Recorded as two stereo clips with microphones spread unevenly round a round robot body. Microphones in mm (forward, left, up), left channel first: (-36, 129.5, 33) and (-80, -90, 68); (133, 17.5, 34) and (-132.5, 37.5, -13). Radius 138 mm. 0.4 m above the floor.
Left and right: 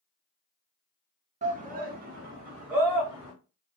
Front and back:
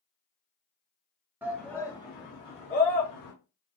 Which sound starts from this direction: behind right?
A shout, at 1.4 s.